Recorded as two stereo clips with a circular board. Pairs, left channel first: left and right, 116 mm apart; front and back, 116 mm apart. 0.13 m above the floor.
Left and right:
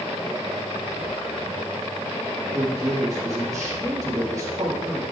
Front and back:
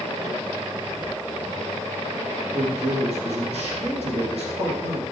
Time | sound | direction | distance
2.5 | a man speaking | 150° right | 5 m